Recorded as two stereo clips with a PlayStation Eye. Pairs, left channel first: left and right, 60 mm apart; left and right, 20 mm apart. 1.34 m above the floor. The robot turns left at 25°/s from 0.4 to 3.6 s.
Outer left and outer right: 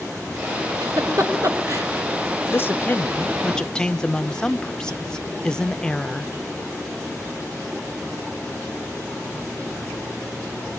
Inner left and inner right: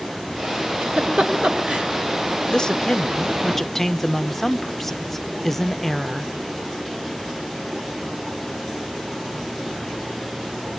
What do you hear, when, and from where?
0.8 s a giggle: 80° right, 3 m; by 1.9 s 60° right (ahead or behind), 3 m
2.5 s a woman speaking: 40° left (ahead or behind), 0.7 m; by 6.3 s 15° left (ahead or behind), 0.7 m